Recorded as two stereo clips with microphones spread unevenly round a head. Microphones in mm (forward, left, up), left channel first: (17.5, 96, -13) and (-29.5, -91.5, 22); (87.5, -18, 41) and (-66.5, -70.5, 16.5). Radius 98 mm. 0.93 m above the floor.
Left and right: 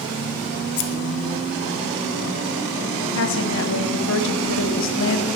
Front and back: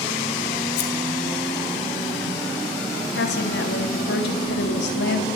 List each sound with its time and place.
0.8 s scissors: 40° left, 0.9 m
3.1 s a woman speaking: 55° left, 1.2 m